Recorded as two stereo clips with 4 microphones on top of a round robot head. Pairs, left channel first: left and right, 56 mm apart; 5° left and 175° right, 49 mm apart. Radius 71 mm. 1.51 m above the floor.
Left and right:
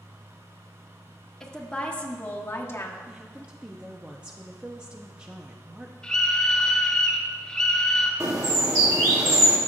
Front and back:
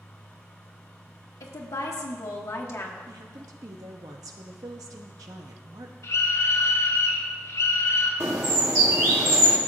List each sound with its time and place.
1.4 s a woman speaking: 10° left, 1.2 m; by 3.0 s 45° left, 1.1 m
3.1 s a woman speaking: 165° right, 0.7 m
6.0 s a scream: 10° left, 2 m
8.2 s a bird: 135° right, 1.0 m